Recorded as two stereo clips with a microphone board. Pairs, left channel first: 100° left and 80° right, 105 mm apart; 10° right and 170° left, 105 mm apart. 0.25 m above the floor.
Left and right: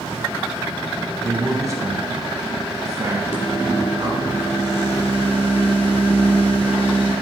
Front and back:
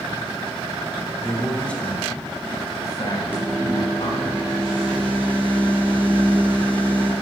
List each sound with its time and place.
1.2 s a man speaking: 105° right, 1.6 m; by 4.3 s 30° right, 2.5 m
3.3 s a microwave: 90° left, 3 m